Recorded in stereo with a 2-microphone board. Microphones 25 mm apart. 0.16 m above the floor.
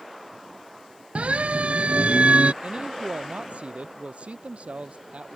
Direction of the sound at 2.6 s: 60° right (ahead or behind).